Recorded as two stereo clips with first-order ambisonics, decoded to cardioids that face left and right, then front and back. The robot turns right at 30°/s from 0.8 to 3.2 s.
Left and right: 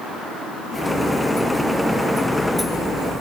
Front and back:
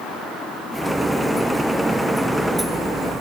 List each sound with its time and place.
Only background noise.